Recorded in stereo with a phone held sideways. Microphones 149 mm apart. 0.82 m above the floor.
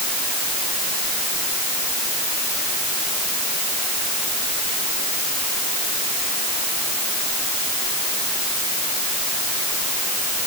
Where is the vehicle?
I don't hear a vehicle.